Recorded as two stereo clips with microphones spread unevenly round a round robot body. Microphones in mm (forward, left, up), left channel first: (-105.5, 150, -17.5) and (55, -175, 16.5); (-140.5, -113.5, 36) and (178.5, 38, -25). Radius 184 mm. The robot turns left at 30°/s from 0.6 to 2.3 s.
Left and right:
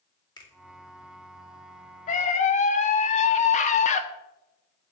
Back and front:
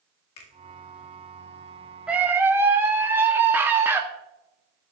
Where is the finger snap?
170° right, 2.0 m.